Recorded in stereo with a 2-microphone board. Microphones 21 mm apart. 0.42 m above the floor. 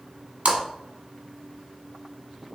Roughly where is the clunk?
I don't hear a clunk.